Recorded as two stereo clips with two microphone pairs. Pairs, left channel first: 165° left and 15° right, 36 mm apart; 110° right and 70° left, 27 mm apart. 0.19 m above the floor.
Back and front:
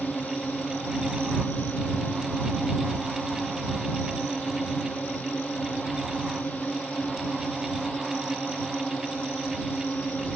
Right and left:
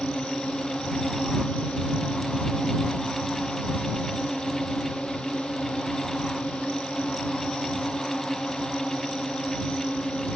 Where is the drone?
160° right.